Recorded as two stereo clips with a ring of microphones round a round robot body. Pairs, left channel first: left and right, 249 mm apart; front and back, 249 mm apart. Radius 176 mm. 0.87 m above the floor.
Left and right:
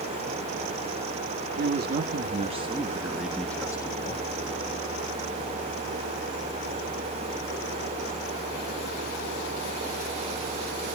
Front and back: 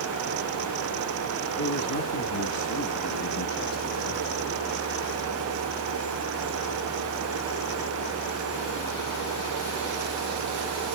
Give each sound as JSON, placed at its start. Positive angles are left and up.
{"t": 1.6, "sound": "a man speaking", "azimuth_deg": -45, "distance_m": 2.0}